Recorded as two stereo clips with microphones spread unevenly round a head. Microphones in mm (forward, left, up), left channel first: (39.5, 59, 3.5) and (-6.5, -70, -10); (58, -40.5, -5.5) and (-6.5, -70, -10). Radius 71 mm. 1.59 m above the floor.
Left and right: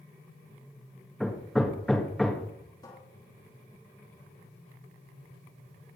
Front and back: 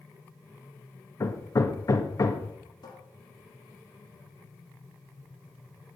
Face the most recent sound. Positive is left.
turn(degrees=5)